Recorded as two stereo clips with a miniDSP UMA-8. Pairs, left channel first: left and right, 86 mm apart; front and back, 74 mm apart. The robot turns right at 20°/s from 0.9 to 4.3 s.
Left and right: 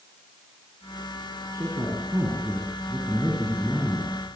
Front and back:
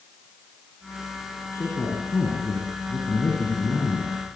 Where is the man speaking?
30° right, 6.5 m; by 4.1 s 25° left, 6.5 m.